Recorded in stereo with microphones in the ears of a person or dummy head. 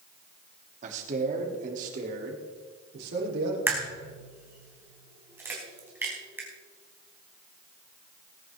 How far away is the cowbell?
No cowbell in this recording.